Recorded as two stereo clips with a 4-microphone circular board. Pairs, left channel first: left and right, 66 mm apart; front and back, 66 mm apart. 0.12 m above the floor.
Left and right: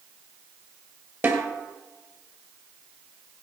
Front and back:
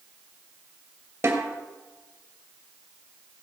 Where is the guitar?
I don't hear a guitar.